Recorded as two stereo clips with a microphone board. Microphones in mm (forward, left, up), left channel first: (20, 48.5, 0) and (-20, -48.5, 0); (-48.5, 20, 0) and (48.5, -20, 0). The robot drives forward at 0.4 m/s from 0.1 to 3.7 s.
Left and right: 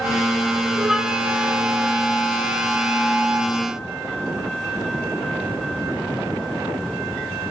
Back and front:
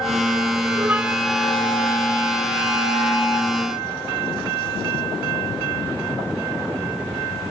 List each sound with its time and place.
0.8 s a flute: 30° right, 0.5 m; by 3.5 s 175° right, 1.0 m